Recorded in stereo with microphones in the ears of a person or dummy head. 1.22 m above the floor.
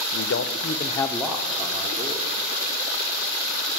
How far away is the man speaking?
About 0.8 m.